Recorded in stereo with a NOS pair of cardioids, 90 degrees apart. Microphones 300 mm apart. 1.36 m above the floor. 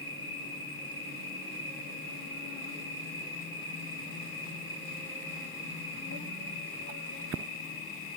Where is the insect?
35° left, 1.2 m.